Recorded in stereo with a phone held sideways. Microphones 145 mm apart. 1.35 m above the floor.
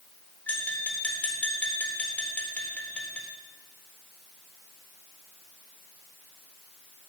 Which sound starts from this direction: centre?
Tapping, at 0.5 s.